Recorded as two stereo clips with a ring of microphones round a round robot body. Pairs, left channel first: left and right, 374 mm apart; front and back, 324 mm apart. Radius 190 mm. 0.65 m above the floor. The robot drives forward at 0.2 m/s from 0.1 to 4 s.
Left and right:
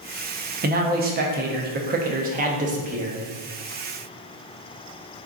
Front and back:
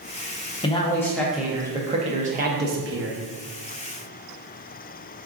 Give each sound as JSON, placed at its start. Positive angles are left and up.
{"t": 0.6, "sound": "a man speaking", "azimuth_deg": -55, "distance_m": 0.5}